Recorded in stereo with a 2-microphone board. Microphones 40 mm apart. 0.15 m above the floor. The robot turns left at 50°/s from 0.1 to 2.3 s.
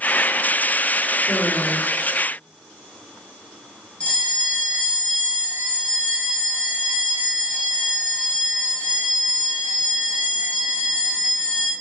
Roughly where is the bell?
Left.